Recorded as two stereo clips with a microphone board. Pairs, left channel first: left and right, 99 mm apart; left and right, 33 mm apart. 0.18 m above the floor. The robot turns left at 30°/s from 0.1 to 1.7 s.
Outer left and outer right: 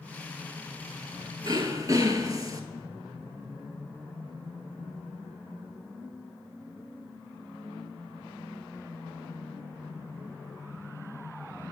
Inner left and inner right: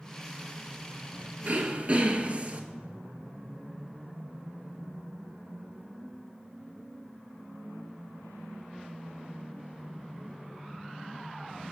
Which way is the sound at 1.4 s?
50° right (ahead or behind).